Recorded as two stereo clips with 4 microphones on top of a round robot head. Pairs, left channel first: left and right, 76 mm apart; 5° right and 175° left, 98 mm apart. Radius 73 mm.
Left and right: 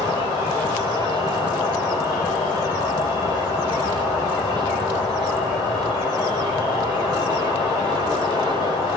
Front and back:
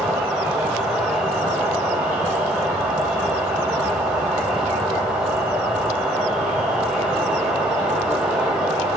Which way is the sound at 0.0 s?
95° left.